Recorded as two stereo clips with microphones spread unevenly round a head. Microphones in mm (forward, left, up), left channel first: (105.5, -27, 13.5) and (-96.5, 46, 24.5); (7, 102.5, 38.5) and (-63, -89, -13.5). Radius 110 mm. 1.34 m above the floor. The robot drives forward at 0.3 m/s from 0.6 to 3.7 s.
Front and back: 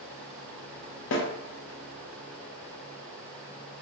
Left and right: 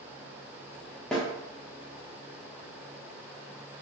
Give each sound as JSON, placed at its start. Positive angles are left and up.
{"t": 1.1, "sound": "a snare drum", "azimuth_deg": -25, "distance_m": 0.6}